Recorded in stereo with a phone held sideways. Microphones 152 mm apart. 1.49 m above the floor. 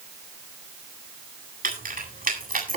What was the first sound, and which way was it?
Keys jangling, 70° right (ahead or behind).